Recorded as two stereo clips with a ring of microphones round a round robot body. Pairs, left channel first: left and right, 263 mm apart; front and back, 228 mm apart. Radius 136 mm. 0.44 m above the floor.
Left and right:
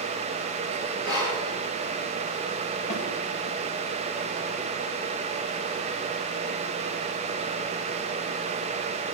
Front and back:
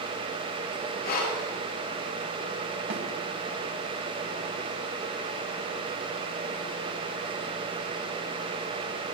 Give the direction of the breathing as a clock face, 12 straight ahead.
10 o'clock.